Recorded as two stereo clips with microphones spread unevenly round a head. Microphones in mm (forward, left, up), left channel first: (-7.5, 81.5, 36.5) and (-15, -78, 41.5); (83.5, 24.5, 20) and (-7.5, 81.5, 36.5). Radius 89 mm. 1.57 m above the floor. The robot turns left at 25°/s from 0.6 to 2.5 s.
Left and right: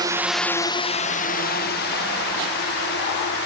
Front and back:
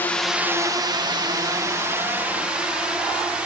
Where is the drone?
60° right; by 3.5 s 65° left.